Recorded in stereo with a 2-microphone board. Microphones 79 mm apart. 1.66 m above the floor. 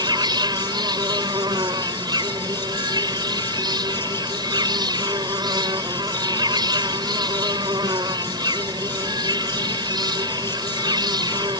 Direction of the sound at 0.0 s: 70° right (ahead or behind).